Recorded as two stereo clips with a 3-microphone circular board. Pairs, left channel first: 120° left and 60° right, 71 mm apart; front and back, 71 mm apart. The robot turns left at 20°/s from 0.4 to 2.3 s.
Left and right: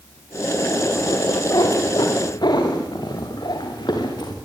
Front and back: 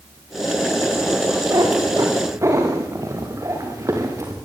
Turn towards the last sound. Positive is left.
turn(degrees=135)